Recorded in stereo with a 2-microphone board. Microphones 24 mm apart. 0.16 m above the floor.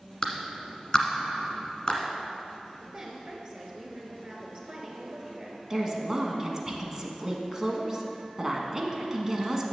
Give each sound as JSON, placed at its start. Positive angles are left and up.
{"t": 0.2, "sound": "a clap", "side_deg": 30, "distance_m": 1.3}
{"t": 2.8, "sound": "a woman speaking", "side_deg": -35, "distance_m": 1.8}
{"t": 5.7, "sound": "a woman speaking", "side_deg": -25, "distance_m": 1.1}